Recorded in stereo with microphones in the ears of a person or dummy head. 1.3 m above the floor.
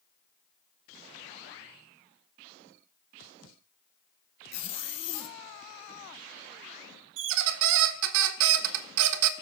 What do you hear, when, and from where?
4.5 s a zipper: 35° left (ahead or behind), 0.7 m
7.2 s a squeak: 70° right (ahead or behind), 0.5 m